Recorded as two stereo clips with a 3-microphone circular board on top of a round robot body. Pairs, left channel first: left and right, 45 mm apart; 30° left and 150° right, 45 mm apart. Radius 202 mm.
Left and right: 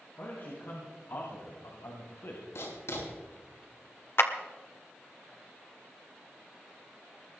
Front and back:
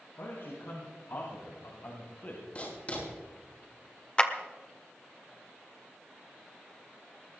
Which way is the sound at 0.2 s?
55° left.